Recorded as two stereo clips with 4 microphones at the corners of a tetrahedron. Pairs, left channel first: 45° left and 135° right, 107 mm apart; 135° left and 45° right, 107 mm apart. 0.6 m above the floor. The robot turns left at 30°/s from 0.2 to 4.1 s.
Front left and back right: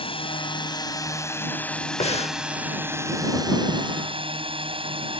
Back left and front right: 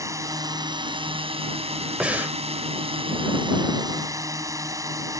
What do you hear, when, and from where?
0.0 s a drone: 15° left; by 5.2 s 105° right
2.0 s breathing: 35° left; by 2.4 s 25° left